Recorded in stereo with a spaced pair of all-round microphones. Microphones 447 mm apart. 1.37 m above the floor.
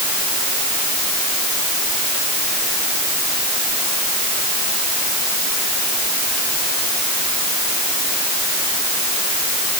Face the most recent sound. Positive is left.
No sound to turn to.